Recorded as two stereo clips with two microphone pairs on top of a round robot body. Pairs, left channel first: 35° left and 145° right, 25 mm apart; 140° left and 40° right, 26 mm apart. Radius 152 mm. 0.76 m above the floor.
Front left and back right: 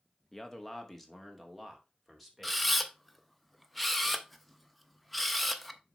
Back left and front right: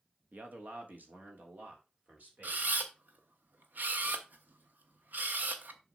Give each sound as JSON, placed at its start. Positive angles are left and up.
{"t": 0.3, "sound": "a man speaking", "azimuth_deg": -35, "distance_m": 1.7}
{"t": 2.4, "sound": "a camera shutter", "azimuth_deg": -55, "distance_m": 0.9}